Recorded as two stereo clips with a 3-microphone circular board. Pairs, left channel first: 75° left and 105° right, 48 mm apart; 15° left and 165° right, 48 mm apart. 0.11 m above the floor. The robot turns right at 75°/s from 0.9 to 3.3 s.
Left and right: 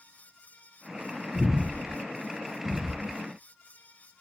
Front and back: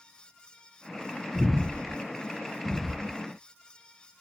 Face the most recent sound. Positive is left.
turn(degrees=-45)